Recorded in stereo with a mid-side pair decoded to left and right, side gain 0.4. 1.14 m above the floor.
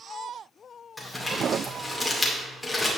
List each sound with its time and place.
1.0 s crumpling: 15° left, 2.5 m